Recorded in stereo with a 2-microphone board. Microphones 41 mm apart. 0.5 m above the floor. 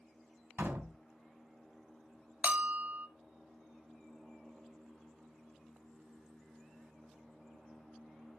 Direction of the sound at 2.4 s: 40° right (ahead or behind).